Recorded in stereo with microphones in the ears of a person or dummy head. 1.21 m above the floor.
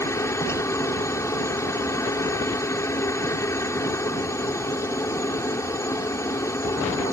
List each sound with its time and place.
0.0 s a helicopter: 10° left (ahead or behind)